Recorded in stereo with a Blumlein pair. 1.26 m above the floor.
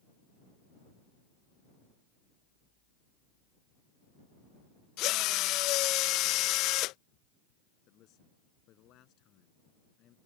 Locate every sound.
5.0 s a drill: 40° left
7.9 s a man speaking: 35° left